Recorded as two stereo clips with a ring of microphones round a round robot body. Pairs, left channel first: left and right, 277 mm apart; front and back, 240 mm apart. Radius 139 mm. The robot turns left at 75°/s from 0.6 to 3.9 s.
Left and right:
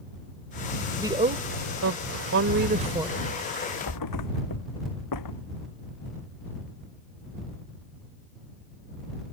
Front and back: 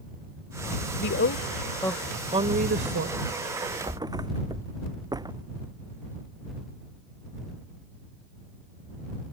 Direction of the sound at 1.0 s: 10° right.